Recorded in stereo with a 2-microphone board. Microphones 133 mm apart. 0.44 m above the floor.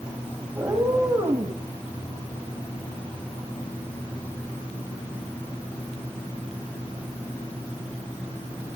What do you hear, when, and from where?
0.6 s a cat meowing: 20° right (ahead or behind), 7.5 m; by 1.6 s 25° right (ahead or behind), 8 m